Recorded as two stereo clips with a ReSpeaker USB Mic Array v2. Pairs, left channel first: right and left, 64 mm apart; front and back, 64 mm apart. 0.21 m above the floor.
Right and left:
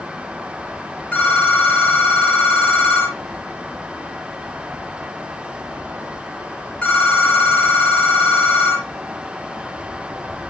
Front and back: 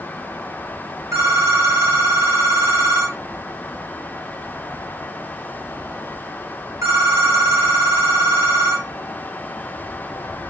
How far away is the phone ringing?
About 2.0 m.